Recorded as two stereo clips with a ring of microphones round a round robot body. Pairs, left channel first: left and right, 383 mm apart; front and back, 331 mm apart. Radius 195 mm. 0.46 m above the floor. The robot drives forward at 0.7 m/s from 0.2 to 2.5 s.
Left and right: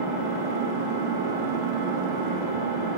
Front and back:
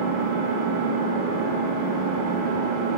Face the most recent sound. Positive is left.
turn(degrees=-165)